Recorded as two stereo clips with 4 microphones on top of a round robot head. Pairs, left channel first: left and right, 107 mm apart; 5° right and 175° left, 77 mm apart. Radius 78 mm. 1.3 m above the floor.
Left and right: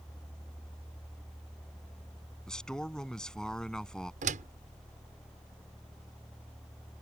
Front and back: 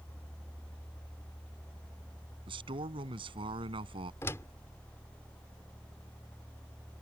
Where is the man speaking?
175° left.